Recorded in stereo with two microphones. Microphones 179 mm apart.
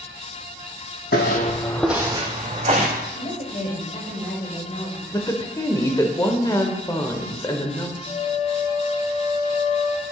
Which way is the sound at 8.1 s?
50° left (ahead or behind).